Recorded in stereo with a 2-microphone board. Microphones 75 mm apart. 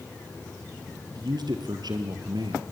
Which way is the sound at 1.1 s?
65° right (ahead or behind).